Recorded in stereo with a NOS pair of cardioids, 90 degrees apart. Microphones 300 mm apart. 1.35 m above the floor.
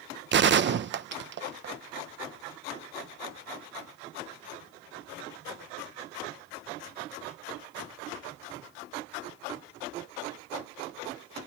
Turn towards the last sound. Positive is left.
turn(degrees=-40)